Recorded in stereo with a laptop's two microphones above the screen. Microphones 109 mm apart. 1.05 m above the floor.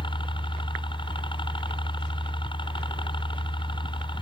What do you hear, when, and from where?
0.0 s a helicopter: 50° left (ahead or behind)